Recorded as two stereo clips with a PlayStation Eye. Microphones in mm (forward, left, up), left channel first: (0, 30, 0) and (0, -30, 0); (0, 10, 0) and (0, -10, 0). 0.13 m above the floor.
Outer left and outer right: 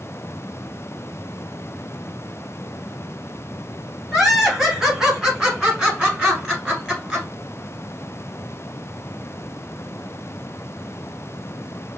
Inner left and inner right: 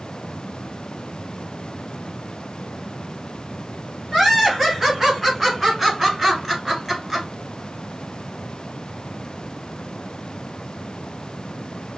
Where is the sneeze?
I don't hear a sneeze.